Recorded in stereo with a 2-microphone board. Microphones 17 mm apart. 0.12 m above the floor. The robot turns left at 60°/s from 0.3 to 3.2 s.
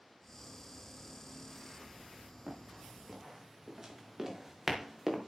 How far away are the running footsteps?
About 7.5 m.